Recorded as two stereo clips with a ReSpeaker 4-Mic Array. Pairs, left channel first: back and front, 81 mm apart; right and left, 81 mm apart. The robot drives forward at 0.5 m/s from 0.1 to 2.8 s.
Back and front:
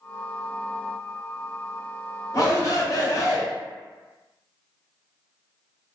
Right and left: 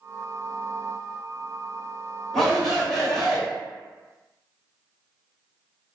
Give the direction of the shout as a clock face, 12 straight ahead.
6 o'clock.